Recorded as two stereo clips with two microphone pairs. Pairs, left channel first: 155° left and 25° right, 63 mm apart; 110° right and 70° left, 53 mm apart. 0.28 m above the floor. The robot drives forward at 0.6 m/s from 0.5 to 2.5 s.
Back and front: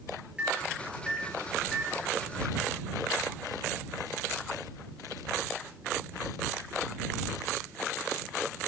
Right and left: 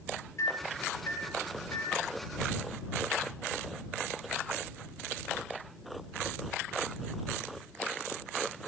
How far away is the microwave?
About 5 m.